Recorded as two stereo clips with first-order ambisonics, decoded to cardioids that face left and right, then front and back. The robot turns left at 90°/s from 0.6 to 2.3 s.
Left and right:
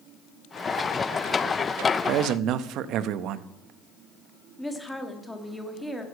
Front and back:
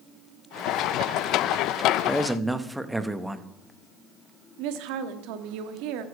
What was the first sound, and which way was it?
A man speaking, 75° right.